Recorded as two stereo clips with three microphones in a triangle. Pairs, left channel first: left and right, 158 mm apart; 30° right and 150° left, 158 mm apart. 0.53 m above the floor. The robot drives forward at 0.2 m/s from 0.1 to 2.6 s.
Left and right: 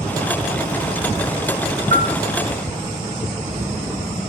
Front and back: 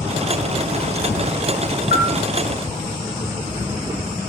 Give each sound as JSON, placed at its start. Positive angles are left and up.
{"t": 1.9, "sound": "a bell", "azimuth_deg": -55, "distance_m": 0.6}